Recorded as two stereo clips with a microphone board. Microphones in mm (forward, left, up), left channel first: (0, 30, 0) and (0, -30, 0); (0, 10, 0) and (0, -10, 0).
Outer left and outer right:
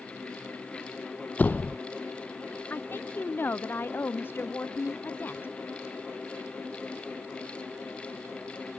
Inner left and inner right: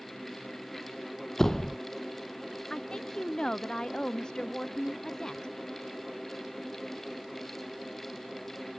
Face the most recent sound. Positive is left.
turn(degrees=35)  # may be behind; listen again after turning